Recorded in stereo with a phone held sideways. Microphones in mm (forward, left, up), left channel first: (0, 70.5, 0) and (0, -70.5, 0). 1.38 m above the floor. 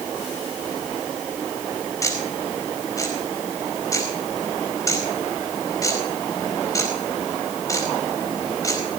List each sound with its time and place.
2.0 s ticking: 25° left (ahead or behind), 4.5 m